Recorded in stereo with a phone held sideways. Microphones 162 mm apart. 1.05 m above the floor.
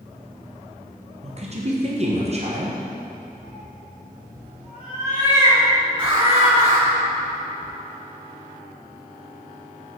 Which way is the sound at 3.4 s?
40° right (ahead or behind).